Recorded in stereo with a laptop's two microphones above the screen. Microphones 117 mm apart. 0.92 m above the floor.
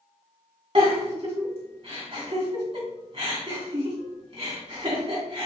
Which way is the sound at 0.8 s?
55° right (ahead or behind).